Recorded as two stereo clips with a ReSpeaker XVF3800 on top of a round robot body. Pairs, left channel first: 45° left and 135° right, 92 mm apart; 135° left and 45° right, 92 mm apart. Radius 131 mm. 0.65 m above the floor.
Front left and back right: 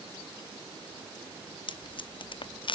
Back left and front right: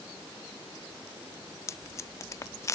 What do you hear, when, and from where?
1.7 s tape being pulled: 75° left, 0.6 m